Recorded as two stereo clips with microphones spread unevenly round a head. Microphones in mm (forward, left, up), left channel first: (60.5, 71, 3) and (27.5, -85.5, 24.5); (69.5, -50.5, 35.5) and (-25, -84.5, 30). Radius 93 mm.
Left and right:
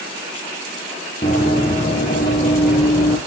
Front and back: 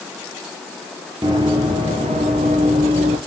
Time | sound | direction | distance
1.2 | running footsteps | 135° left | 1.8 m